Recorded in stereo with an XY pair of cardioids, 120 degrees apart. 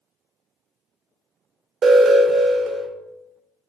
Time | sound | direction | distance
1.8 | an alarm | 40° right | 0.6 m